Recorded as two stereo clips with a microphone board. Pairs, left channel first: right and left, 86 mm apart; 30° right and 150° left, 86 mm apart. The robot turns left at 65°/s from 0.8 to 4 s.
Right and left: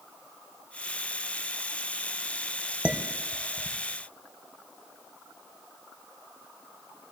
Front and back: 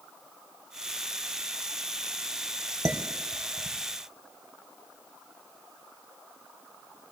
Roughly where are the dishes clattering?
Behind left.